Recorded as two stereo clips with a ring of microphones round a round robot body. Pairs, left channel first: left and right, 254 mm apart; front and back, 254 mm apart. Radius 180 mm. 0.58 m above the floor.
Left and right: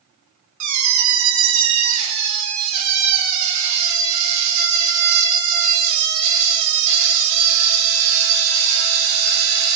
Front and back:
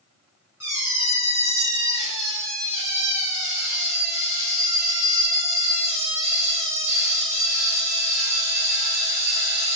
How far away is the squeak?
About 0.6 m.